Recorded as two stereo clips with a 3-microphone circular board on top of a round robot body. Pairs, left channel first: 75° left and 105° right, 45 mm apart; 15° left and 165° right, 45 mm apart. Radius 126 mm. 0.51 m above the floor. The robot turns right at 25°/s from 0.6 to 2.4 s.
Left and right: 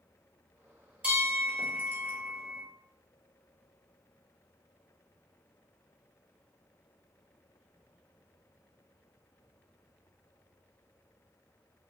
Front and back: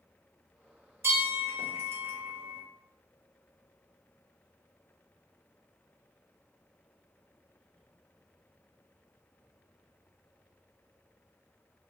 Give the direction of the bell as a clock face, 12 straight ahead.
6 o'clock.